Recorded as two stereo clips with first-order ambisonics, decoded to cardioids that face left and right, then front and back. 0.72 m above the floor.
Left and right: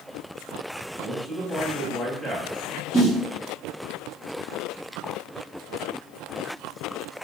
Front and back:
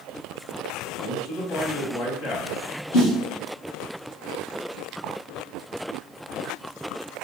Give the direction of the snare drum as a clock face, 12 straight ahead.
12 o'clock.